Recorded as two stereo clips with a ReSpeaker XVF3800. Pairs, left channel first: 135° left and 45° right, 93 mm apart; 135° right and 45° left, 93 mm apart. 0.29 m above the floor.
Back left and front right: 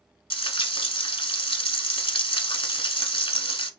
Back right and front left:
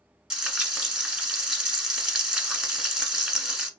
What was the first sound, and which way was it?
Frying, 125° left.